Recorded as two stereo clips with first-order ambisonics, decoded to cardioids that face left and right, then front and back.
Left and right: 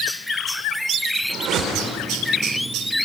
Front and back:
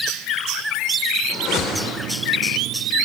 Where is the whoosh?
50° right, 3.5 m.